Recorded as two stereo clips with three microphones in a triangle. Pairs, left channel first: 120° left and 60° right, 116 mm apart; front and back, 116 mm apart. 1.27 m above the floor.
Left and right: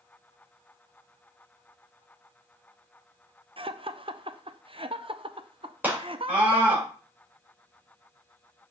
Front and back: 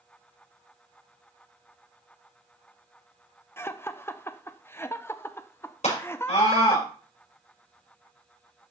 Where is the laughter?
65° right, 0.7 m.